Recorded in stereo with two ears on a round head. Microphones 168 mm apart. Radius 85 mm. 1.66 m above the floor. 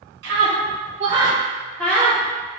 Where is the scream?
60° right (ahead or behind), 1.1 m; by 2.2 s 20° left (ahead or behind), 0.9 m.